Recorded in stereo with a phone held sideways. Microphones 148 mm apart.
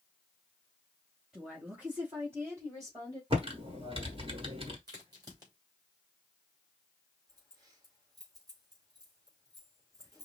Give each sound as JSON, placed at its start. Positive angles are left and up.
{"t": 1.3, "sound": "a woman speaking", "side_deg": -5, "distance_m": 2.5}
{"t": 3.3, "sound": "typing on a keyboard", "side_deg": -40, "distance_m": 1.4}
{"t": 4.9, "sound": "a crack", "side_deg": -30, "distance_m": 3.0}
{"t": 7.3, "sound": "keys jangling", "side_deg": -25, "distance_m": 3.5}